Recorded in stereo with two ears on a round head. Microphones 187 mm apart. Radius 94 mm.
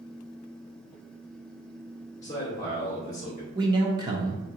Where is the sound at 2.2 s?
20° left (ahead or behind), 1.5 m.